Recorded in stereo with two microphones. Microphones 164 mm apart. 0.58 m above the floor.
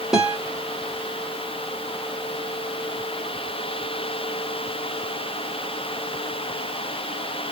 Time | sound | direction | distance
0.1 | a guitar | 5° right (ahead or behind) | 1.3 m